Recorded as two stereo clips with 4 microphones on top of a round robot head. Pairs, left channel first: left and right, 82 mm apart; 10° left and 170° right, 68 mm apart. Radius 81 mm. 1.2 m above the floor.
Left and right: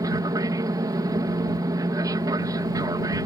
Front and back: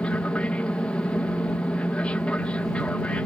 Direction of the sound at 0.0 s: 60° right.